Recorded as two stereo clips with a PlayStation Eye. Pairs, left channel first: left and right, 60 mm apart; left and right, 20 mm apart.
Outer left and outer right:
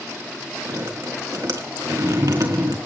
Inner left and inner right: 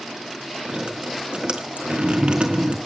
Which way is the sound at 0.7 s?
75° right (ahead or behind).